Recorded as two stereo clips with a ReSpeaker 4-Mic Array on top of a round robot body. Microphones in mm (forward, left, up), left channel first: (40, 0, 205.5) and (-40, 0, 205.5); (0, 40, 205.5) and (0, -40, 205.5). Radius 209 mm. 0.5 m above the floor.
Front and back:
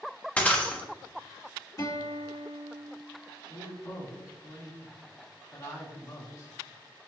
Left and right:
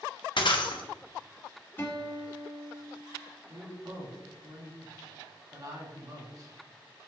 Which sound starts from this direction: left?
Breaking glass, at 0.4 s.